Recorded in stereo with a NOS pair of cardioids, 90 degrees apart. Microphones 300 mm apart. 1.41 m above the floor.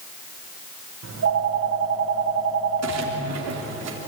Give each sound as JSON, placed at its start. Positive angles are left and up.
{"t": 1.0, "sound": "a phone ringing", "azimuth_deg": -55, "distance_m": 4.0}
{"t": 2.8, "sound": "a splash", "azimuth_deg": -60, "distance_m": 3.0}